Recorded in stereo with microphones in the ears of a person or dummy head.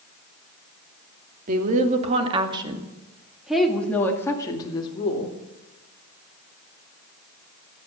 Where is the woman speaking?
45° right (ahead or behind), 2.5 m; by 5.4 s 30° left (ahead or behind), 2.5 m.